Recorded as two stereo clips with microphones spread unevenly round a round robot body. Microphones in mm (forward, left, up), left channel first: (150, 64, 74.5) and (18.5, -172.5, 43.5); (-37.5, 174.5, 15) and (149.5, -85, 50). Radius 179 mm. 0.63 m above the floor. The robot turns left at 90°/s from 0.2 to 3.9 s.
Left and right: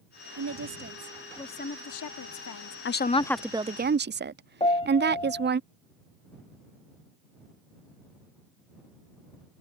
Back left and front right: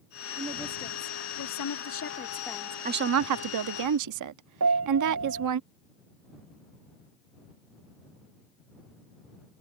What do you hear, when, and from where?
0.4 s a woman speaking: 125° right; by 2.8 s 20° left
2.9 s a woman speaking: 15° left; by 5.6 s 80° right
4.6 s a piano: 10° right